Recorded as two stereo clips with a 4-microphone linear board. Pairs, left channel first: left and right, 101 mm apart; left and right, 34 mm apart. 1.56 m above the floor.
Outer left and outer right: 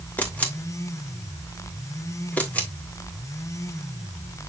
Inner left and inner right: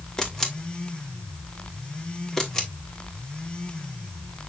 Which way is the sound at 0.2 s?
15° left (ahead or behind).